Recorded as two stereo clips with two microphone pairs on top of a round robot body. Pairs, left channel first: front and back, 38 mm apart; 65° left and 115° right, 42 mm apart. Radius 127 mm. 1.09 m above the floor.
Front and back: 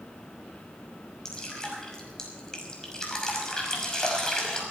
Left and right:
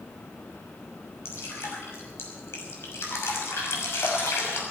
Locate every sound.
1.2 s dripping: 75° left, 6 m